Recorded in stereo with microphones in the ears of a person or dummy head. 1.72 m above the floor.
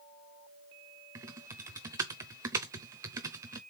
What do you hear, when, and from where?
1.1 s typing on a keyboard: 20° right (ahead or behind), 0.6 m